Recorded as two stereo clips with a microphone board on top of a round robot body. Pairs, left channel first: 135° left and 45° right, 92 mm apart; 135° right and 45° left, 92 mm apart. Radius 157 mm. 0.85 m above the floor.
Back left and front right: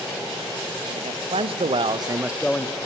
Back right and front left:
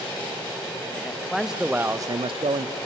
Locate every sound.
0.9 s a man speaking: 50° right, 1.5 m; by 2.8 s 75° left, 0.8 m